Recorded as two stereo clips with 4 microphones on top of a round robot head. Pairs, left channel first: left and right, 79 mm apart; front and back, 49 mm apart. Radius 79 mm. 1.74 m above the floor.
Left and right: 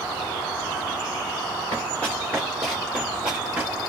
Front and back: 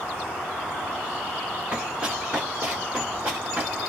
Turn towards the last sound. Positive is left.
turn(degrees=-140)